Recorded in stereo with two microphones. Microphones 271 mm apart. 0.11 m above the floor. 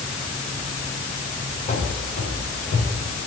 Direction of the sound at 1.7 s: 25° left (ahead or behind).